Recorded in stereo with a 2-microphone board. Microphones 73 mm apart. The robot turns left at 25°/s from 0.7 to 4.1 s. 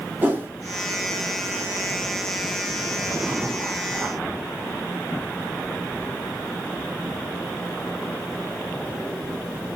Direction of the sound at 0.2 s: 25° right (ahead or behind).